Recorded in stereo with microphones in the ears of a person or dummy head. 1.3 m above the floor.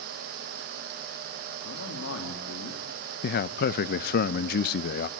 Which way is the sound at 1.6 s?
80° left.